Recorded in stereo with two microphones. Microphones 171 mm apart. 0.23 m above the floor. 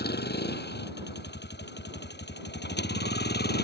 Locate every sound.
0.0 s a vehicle: 70° left (ahead or behind)